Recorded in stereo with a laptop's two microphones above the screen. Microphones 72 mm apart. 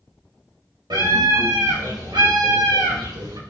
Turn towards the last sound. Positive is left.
turn(degrees=-80)